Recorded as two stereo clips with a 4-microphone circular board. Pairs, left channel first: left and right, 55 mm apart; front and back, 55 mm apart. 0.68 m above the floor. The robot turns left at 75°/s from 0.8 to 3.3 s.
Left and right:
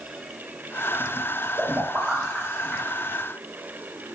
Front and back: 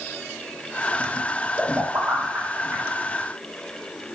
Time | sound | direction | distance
1.6 | a pop | 120° right | 1.1 m